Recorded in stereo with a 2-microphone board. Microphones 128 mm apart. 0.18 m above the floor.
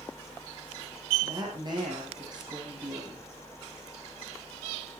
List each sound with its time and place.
1.2 s a woman speaking: 35° right (ahead or behind), 7 m